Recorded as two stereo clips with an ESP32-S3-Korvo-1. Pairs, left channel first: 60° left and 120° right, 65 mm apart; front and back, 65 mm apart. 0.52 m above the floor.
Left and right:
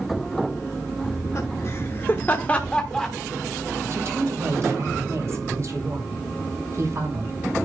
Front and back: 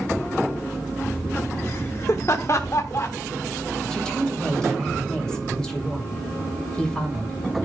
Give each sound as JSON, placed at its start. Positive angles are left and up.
{"t": 1.0, "sound": "laughter", "azimuth_deg": 50, "distance_m": 1.1}
{"t": 3.9, "sound": "a woman speaking", "azimuth_deg": -80, "distance_m": 2.5}